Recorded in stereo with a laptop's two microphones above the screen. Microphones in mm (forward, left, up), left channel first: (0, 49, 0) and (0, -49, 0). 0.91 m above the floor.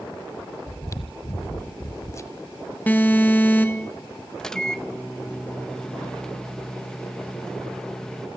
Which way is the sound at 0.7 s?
35° left (ahead or behind).